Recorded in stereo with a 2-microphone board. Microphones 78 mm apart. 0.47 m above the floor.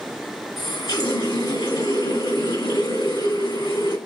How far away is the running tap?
About 2.5 m.